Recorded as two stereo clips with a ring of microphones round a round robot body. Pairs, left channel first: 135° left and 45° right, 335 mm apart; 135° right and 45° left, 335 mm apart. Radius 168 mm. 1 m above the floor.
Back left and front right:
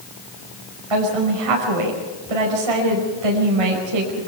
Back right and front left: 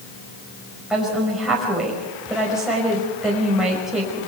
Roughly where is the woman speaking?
Ahead right.